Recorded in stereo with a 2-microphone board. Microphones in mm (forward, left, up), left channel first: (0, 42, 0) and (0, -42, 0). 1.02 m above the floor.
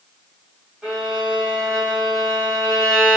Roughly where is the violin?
Centre.